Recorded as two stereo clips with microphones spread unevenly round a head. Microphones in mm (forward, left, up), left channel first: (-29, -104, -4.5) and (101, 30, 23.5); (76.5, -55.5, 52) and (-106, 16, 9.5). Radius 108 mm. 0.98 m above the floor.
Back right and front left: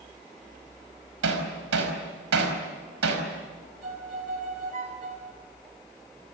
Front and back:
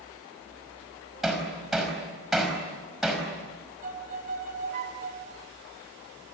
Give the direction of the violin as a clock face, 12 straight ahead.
9 o'clock.